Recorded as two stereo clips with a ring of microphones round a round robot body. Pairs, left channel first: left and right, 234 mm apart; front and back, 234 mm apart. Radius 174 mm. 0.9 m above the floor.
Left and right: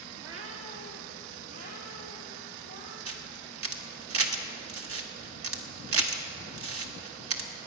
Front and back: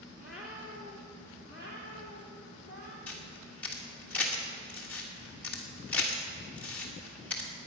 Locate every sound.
0.2 s a cat meowing: 85° right, 1.5 m; by 3.0 s 135° right, 3 m
3.1 s a camera shutter: 85° right, 1.2 m